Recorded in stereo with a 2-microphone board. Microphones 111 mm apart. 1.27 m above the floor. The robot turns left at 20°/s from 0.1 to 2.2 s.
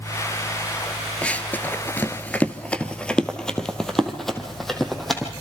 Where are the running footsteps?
10° left (ahead or behind), 1.3 m; by 5.3 s centre (ahead or behind), 3.5 m.